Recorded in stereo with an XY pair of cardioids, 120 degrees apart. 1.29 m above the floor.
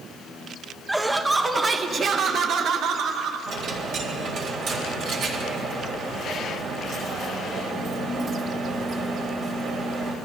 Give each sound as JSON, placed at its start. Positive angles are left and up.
{"t": 0.9, "sound": "laughter", "azimuth_deg": -10, "distance_m": 1.3}
{"t": 3.5, "sound": "a dropped coin", "azimuth_deg": -65, "distance_m": 3.0}